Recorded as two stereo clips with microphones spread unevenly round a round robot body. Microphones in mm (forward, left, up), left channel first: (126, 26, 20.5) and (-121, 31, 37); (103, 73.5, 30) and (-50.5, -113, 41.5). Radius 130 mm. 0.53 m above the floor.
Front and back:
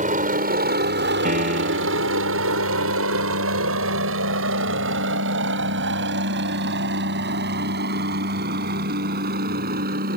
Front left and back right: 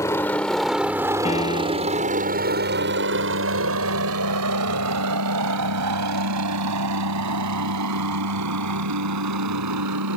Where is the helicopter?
125° left; by 10.2 s 125° right.